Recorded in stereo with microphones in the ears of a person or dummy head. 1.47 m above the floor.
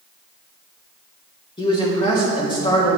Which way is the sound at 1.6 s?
20° left (ahead or behind).